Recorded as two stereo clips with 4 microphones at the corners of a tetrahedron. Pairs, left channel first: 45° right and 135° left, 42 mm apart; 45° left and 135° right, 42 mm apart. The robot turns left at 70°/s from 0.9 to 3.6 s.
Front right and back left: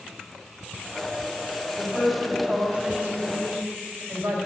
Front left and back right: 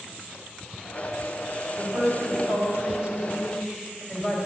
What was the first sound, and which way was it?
A woman speaking, 100° right.